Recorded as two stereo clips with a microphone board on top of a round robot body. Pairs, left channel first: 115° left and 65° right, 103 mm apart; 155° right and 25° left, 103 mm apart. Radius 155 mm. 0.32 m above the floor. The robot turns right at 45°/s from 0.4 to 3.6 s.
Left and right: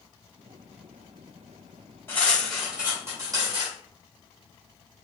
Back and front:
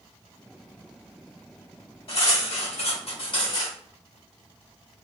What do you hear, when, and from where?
2.1 s cutlery clinking: straight behind, 1.6 m; by 3.8 s 110° right, 1.6 m